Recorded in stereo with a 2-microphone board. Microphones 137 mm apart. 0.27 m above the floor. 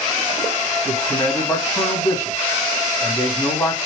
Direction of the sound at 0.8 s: 25° left (ahead or behind).